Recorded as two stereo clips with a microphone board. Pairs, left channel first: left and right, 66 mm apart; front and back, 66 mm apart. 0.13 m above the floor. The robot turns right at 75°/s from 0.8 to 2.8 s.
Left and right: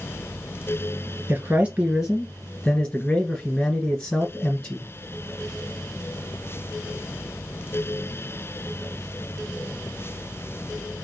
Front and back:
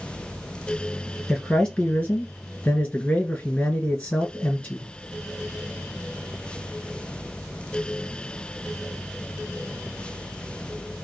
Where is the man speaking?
80° right, 1.7 m; by 4.9 s 30° left, 1.7 m.